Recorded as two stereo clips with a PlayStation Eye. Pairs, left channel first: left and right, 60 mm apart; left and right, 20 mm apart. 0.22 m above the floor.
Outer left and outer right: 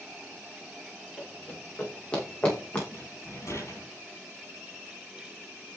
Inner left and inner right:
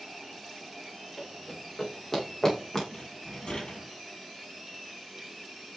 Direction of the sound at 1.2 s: 20° left (ahead or behind).